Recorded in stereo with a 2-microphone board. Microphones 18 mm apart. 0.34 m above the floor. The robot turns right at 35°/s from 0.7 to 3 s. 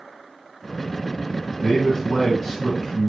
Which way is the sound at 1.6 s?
Straight ahead.